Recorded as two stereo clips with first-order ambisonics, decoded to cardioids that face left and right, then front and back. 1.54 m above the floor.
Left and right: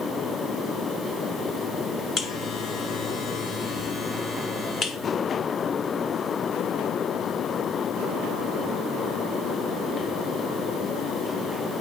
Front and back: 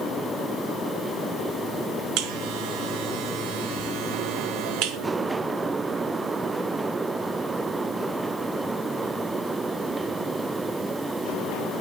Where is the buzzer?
155° left, 0.9 m.